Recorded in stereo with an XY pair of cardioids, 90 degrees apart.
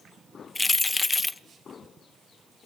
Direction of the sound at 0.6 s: 25° left.